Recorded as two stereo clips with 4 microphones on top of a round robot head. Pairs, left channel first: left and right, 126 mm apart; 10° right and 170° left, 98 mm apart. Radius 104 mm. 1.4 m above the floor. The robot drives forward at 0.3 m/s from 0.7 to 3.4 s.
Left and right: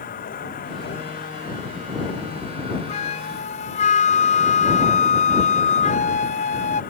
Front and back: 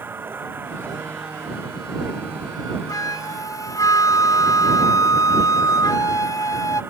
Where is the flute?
45° left.